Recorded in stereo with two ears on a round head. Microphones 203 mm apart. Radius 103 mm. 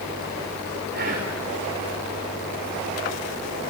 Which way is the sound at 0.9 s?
50° right (ahead or behind).